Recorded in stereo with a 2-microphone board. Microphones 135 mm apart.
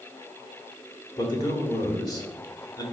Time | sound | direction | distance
1.2 | a man speaking | 30° left (ahead or behind) | 1.5 m